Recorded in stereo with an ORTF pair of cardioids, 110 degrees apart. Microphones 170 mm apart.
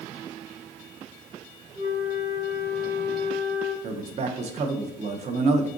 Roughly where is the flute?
Ahead right.